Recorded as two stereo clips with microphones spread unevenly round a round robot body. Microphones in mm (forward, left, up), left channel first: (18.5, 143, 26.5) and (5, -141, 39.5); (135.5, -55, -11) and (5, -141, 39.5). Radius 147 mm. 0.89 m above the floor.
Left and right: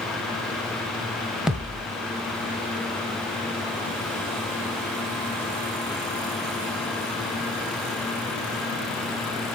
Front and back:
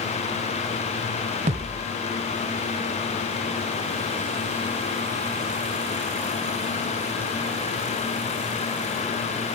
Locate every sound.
1.5 s a thud: straight behind, 1.1 m